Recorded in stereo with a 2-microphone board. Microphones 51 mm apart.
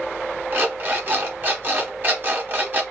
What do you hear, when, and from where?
0.5 s an alarm clock: 45° right (ahead or behind), 0.9 m